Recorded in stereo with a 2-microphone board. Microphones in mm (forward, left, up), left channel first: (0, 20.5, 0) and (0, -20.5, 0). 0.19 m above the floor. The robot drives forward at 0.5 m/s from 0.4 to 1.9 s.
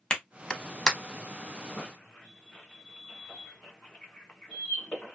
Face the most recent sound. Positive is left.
turn(degrees=30)  # may be behind; listen again after turning